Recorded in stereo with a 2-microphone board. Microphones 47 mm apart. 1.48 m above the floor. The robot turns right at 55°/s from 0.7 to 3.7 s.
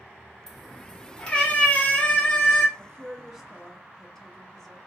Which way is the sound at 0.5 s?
10° left (ahead or behind).